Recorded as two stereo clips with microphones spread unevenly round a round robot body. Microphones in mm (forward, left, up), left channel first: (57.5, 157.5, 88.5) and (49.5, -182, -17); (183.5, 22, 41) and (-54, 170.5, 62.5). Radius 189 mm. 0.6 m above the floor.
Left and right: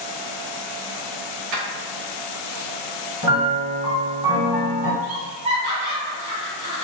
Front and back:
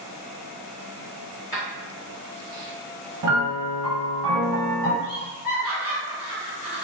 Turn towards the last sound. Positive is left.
turn(degrees=-125)